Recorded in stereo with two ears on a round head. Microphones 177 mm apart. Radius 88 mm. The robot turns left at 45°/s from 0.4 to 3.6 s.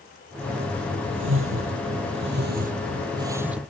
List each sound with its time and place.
1.1 s a whoosh: 60° right (ahead or behind); by 3.7 s 5° right (ahead or behind)